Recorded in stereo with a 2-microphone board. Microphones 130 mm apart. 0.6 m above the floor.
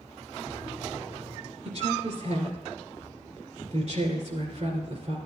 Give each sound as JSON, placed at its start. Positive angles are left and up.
{"t": 1.6, "sound": "a woman speaking", "side_deg": -55, "distance_m": 2.5}